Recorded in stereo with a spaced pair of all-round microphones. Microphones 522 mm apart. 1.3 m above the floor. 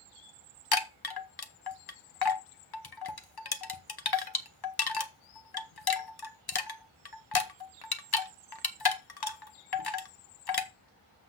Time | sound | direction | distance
0.7 | a chime | 45° left (ahead or behind) | 0.9 m